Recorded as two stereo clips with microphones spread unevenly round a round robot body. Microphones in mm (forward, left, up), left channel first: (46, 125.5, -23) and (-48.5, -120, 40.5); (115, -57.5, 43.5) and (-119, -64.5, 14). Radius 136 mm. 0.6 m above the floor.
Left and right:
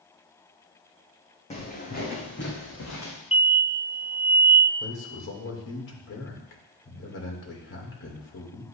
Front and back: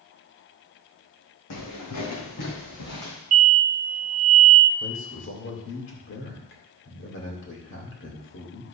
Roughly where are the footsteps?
Ahead.